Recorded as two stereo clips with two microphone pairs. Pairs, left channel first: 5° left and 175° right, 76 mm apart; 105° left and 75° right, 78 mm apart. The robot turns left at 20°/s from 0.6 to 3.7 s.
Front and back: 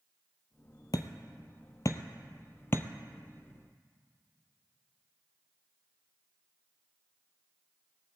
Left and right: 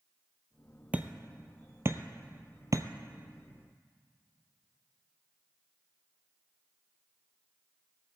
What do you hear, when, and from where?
0.9 s hammering: 5° right, 0.7 m; by 2.9 s 45° right, 0.7 m